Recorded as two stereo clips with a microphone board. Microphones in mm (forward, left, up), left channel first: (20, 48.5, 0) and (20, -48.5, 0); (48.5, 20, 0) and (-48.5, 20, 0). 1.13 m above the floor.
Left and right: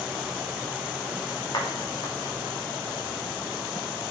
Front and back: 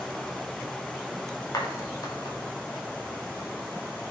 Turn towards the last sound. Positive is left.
turn(degrees=50)